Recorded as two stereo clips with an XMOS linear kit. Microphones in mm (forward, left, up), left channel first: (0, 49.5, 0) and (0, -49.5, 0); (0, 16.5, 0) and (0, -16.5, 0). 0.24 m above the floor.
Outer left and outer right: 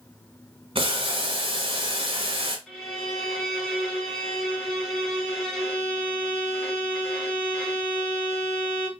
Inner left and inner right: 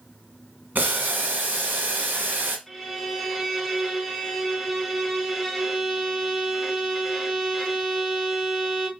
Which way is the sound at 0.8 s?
65° right (ahead or behind).